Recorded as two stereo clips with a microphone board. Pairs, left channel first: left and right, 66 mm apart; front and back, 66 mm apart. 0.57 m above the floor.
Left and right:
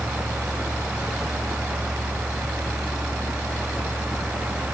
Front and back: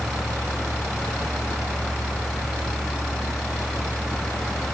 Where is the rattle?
No rattle in this recording.